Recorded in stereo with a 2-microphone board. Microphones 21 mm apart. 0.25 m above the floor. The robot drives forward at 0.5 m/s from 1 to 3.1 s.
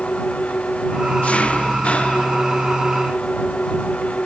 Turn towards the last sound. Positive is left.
turn(degrees=80)